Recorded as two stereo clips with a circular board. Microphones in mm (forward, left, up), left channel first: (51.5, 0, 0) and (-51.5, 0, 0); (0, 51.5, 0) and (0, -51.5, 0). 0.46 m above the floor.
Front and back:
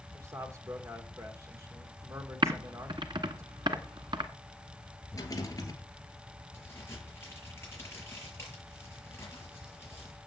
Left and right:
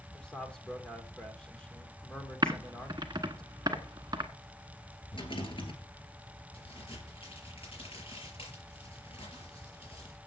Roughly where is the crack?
Ahead left.